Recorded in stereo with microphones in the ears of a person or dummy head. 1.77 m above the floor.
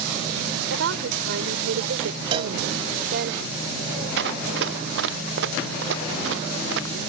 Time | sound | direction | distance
0.7 | a woman speaking | 85° right | ?
2.3 | a cowbell | 30° right (ahead or behind) | ?
4.2 | running footsteps | 65° right (ahead or behind) | ?